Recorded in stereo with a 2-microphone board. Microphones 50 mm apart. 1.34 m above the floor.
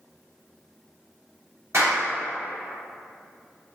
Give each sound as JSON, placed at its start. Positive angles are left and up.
{"t": 1.7, "sound": "a clap", "side_deg": -70, "distance_m": 1.5}